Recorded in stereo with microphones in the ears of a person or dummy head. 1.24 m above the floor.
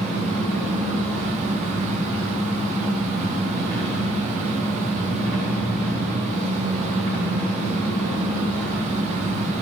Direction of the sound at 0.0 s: 5° left (ahead or behind).